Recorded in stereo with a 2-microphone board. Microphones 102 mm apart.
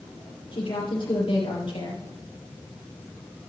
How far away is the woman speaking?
About 3.5 m.